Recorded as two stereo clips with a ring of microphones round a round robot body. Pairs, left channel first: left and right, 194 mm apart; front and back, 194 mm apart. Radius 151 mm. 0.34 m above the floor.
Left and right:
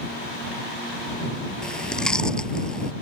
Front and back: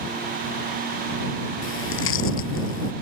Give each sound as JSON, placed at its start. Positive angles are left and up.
{"t": 1.6, "sound": "chewing", "azimuth_deg": 5}